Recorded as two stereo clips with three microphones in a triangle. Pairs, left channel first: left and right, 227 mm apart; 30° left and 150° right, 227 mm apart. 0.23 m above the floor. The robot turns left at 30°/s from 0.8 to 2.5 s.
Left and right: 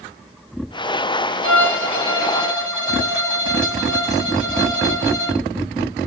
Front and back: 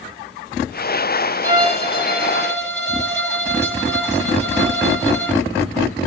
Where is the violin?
90° right, 5 m; by 5.4 s 120° right, 5 m.